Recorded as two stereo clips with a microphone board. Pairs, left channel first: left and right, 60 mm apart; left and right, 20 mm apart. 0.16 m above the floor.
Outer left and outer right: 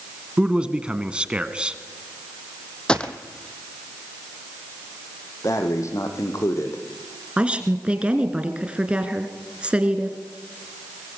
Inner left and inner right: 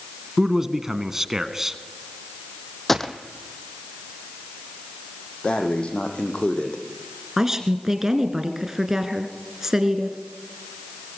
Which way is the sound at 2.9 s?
15° left (ahead or behind).